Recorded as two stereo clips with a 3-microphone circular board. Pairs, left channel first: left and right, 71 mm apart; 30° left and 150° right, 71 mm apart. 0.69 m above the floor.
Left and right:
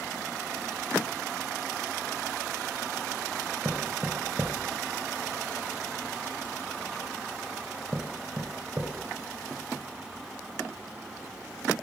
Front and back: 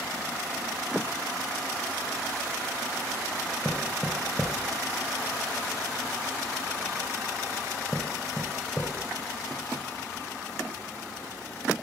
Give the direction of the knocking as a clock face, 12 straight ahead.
1 o'clock.